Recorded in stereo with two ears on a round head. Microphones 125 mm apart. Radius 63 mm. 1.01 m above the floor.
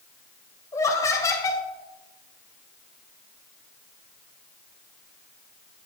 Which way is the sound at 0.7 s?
20° left (ahead or behind).